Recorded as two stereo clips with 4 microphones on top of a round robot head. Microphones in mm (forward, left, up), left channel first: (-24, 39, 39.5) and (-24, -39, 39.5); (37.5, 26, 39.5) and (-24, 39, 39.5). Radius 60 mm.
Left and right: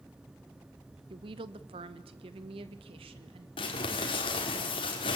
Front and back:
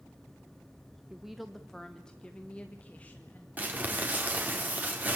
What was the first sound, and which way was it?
A woman speaking, 110° right.